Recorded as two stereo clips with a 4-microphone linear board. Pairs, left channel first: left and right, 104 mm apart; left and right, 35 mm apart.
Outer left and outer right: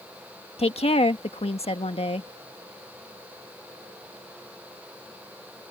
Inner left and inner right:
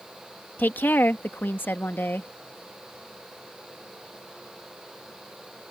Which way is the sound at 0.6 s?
65° left (ahead or behind).